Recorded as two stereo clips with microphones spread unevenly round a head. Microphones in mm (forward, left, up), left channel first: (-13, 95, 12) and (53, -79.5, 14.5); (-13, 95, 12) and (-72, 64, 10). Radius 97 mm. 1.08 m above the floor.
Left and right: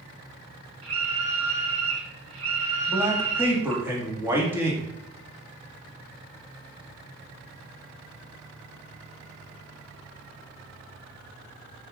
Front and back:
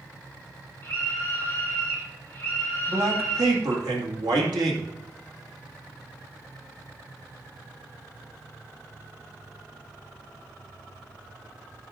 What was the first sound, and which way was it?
A scream, 85° right.